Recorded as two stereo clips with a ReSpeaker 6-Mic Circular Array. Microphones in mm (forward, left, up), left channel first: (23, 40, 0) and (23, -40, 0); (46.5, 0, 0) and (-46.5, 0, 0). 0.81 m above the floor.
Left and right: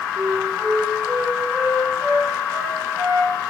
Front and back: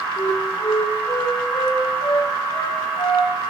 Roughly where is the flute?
Ahead right.